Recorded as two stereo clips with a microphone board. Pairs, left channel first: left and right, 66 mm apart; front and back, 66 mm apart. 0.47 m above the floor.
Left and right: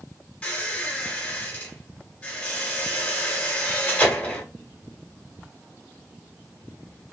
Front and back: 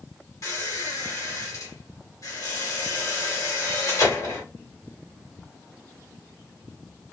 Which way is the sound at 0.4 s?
25° left.